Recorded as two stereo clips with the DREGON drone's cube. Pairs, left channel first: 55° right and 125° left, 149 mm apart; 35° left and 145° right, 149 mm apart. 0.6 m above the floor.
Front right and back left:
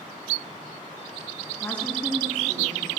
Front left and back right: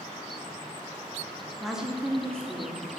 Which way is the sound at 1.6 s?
55° right.